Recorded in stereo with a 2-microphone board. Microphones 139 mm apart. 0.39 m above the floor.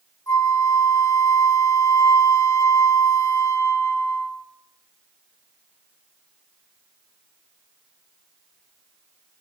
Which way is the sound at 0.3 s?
25° left (ahead or behind).